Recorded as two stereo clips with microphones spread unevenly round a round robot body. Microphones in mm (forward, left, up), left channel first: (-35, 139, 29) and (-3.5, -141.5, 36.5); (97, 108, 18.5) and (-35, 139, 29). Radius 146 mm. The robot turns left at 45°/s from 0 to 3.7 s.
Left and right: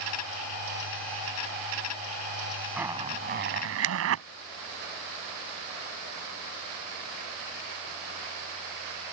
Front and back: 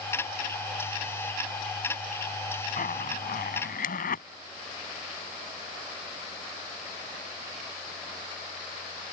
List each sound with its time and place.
2.8 s a zipper: straight ahead; by 4.2 s 40° right